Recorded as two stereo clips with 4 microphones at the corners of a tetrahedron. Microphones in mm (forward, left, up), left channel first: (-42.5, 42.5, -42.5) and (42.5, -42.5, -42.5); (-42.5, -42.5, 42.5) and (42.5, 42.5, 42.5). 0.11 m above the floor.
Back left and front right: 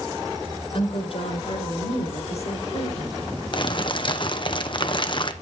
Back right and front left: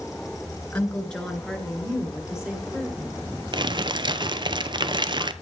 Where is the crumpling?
95° left, 0.6 m.